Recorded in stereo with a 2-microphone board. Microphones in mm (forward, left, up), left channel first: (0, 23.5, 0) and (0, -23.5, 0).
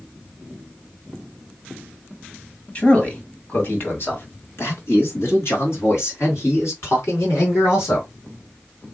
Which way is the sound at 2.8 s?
30° left (ahead or behind).